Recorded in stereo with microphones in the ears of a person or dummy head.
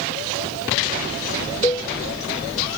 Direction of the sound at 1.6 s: 15° left (ahead or behind).